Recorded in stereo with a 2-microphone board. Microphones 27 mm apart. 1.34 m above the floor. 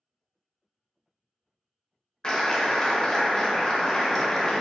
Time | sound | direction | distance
2.2 | a clap | 25° left (ahead or behind) | 0.6 m